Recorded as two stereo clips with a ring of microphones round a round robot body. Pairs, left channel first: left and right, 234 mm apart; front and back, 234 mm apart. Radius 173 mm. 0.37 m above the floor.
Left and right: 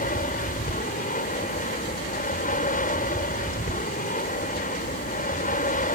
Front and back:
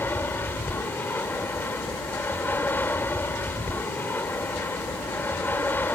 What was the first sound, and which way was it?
An aircraft, 75° left.